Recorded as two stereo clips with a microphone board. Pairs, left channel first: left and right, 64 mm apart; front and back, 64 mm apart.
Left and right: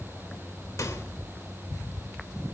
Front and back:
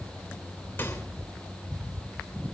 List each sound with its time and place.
0.8 s a microwave: 60° left, 3 m